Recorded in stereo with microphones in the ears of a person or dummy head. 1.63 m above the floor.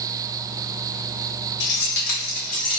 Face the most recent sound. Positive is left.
turn(degrees=30)  # may be behind; listen again after turning